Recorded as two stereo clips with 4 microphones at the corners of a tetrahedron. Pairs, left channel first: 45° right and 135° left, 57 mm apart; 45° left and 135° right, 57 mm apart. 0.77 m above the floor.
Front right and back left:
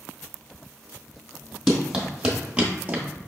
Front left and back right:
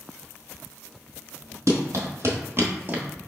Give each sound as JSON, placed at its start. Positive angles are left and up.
{"t": 1.7, "sound": "running footsteps", "azimuth_deg": -145, "distance_m": 1.4}